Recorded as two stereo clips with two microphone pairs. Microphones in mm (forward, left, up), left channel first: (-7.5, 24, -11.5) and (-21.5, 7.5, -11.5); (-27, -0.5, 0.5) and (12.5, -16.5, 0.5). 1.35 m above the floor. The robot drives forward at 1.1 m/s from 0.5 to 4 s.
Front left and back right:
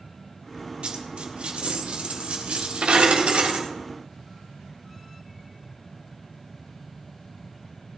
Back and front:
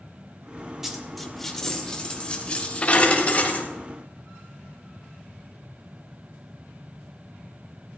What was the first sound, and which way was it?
A dropped coin, 100° right.